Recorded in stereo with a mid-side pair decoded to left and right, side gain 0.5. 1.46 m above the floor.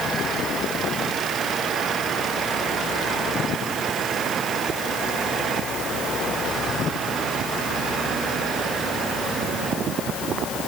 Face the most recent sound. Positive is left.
No sound to turn to.